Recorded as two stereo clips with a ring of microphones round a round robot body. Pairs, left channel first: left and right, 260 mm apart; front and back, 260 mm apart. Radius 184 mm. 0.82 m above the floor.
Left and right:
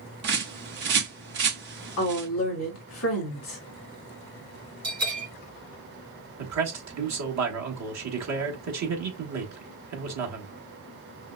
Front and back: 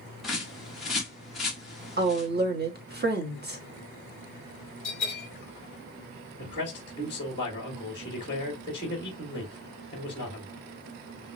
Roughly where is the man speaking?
Right.